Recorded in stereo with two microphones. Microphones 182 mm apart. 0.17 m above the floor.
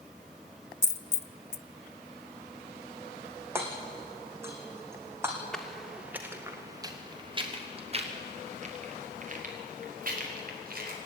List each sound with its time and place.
0.8 s a dropped coin: 70° left (ahead or behind), 0.5 m
3.5 s hammering: 15° right (ahead or behind), 3 m
5.5 s footsteps: 5° left (ahead or behind), 3 m; by 11.0 s 55° right (ahead or behind), 6 m